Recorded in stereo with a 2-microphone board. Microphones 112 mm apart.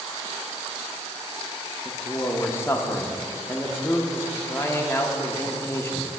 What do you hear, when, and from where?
1.9 s a man speaking: 20° left (ahead or behind), 0.6 m